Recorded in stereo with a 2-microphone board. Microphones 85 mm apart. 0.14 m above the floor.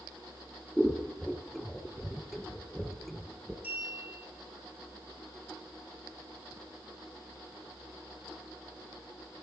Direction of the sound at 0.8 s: Centre (ahead or behind).